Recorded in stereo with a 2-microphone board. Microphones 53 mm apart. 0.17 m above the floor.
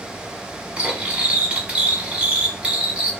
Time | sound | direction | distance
0.8 | cutlery clinking | 25° right (ahead or behind) | 0.9 m